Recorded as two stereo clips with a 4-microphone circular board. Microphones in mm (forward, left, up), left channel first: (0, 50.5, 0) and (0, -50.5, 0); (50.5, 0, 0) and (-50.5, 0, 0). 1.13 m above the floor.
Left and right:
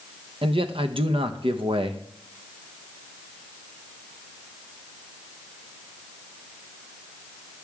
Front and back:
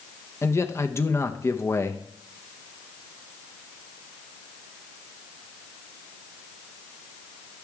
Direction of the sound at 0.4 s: 65° right.